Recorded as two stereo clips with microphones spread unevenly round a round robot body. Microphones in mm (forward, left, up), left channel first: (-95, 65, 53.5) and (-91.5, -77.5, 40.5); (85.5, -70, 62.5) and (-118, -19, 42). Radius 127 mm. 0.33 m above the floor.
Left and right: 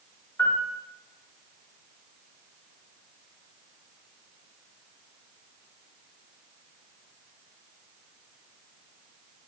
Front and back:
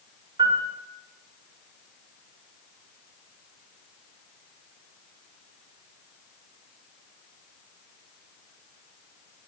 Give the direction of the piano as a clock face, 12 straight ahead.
7 o'clock.